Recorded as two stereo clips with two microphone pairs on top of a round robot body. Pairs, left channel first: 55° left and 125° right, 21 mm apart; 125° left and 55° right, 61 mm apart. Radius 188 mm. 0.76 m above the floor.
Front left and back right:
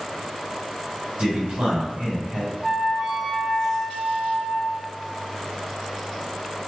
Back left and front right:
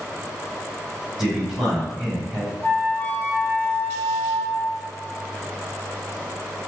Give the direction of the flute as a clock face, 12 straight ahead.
6 o'clock.